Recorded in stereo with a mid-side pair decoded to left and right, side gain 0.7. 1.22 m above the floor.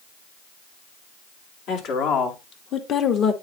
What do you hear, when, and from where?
1.7 s a woman speaking: 60° left, 3 m; by 3.3 s 35° left, 1.7 m